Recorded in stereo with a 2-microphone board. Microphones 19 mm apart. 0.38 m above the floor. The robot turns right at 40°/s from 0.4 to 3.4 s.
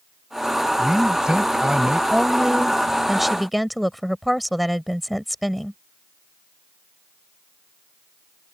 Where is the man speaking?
135° right; by 2.0 s 85° right.